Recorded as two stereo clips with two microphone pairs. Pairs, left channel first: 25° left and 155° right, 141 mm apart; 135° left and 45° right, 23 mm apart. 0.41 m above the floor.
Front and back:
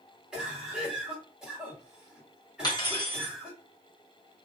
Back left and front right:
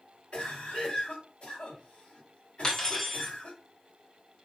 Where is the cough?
125° left, 1.8 m.